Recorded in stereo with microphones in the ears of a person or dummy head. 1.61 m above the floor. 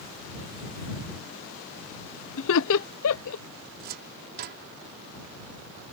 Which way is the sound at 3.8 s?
55° right (ahead or behind).